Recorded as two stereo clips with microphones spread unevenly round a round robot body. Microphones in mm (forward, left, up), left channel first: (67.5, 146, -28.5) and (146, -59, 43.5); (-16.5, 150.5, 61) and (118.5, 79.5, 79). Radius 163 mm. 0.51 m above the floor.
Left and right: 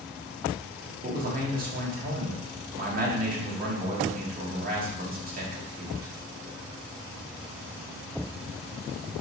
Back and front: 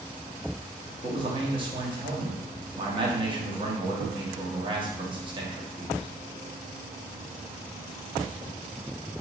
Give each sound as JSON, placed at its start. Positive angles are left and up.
{"t": 1.0, "sound": "a man speaking", "azimuth_deg": -35, "distance_m": 0.9}